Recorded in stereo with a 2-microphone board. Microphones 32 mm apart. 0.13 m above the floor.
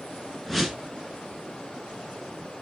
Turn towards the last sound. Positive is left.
turn(degrees=5)  # may be behind; listen again after turning